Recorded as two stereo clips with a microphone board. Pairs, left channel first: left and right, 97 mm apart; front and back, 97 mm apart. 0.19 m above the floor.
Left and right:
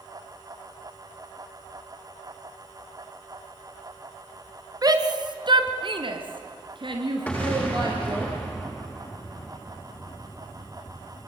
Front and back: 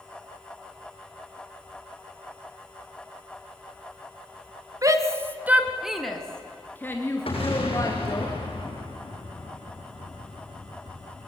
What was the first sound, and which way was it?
A shout, 130° right.